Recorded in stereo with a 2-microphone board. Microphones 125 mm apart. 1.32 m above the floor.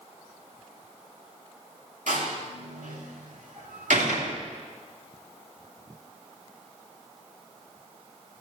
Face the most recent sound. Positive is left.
turn(degrees=-90)